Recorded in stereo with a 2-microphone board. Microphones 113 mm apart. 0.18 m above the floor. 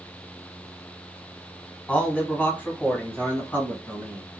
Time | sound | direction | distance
1.9 | a man speaking | 10° left (ahead or behind) | 1.2 m